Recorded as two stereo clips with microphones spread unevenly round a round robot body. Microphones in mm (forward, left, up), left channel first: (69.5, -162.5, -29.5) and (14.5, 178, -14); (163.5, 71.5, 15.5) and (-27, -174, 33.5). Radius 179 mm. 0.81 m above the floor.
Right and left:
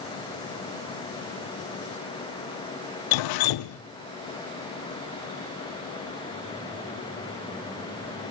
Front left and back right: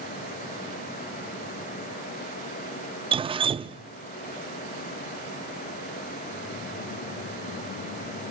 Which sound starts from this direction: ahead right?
Dripping, at 3.1 s.